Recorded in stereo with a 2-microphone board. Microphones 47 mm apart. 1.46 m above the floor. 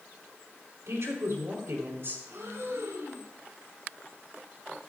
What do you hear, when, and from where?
0.9 s a woman speaking: 75° right (ahead or behind), 4 m; by 2.2 s 50° right (ahead or behind), 4 m
2.3 s breathing: 80° right, 4.5 m